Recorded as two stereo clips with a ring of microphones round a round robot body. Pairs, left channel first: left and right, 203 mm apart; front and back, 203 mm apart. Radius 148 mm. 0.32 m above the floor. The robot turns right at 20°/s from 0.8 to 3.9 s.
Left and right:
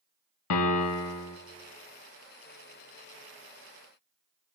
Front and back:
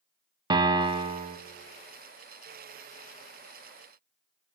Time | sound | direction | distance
0.5 | a piano | 105° left | 0.5 m